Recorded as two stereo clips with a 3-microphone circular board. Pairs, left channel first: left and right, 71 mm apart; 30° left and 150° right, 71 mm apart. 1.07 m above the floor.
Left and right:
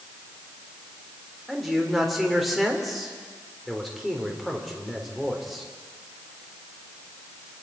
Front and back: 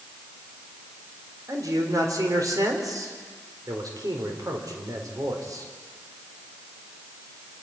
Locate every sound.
1.5 s a man speaking: straight behind, 3.5 m